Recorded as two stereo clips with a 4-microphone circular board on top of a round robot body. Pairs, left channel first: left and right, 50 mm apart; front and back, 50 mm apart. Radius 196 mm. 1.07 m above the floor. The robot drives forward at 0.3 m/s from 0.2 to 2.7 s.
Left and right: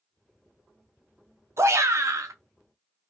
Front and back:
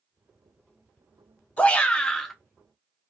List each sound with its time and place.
1.6 s a shout: 60° right, 0.6 m; by 2.4 s 85° right, 0.6 m